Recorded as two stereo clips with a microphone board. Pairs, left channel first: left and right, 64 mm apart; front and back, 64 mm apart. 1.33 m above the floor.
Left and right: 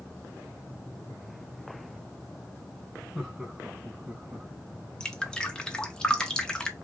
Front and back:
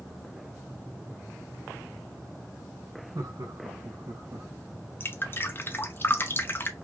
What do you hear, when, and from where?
3.1 s laughter: 170° right, 1.7 m; by 4.5 s 155° right, 2.5 m
5.0 s dripping: 20° left, 0.7 m